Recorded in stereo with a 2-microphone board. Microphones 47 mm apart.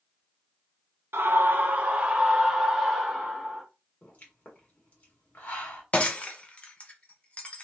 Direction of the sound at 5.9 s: 30° left (ahead or behind).